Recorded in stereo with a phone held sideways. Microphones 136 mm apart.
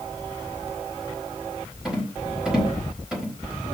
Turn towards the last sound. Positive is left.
turn(degrees=-5)  # may be behind; listen again after turning